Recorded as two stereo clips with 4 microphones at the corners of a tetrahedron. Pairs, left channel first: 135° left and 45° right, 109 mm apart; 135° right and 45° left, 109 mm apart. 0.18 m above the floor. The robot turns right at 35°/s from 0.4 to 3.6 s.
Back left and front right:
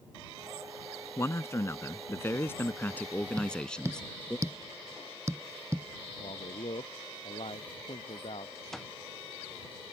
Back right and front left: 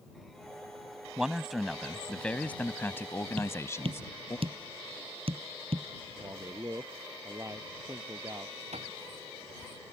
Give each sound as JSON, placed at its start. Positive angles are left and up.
{"t": 1.2, "sound": "a man speaking", "azimuth_deg": 120}
{"t": 3.4, "sound": "tapping", "azimuth_deg": 10}
{"t": 6.2, "sound": "a man speaking", "azimuth_deg": 105}
{"t": 8.7, "sound": "an alarm clock", "azimuth_deg": 45}